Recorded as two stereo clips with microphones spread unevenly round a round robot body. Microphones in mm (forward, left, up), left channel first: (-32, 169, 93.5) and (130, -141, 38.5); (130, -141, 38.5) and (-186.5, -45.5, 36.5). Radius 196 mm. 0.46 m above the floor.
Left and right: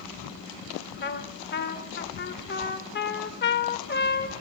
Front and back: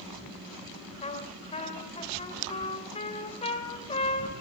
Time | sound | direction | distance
1.0 | a trumpet | 55° left | 2 m